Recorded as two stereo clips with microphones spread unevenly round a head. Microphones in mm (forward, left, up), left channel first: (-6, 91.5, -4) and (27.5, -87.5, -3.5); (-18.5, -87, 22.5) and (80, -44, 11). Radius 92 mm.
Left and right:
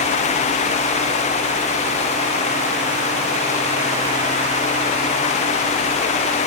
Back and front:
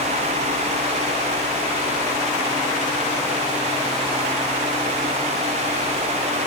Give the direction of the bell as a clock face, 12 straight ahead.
No bell in this recording.